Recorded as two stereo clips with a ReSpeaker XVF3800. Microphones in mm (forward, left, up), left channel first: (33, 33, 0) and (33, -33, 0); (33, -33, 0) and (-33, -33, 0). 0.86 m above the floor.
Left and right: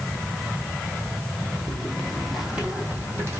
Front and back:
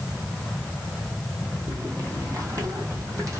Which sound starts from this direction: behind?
Footsteps, at 1.7 s.